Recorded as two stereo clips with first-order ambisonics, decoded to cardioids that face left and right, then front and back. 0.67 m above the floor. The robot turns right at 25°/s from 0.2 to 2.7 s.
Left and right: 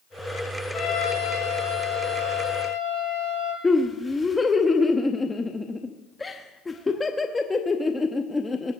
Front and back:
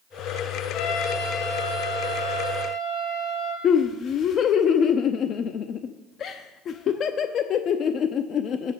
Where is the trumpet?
25° left, 3 m; by 3.5 s 75° left, 3 m.